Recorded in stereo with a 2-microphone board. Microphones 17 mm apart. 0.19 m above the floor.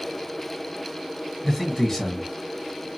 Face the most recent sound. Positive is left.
turn(degrees=25)  # may be behind; listen again after turning